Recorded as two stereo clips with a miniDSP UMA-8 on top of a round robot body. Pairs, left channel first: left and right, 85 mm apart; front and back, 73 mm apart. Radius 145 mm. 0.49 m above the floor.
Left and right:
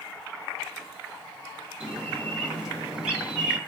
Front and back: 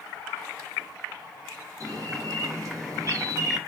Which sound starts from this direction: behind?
A bird, at 1.8 s.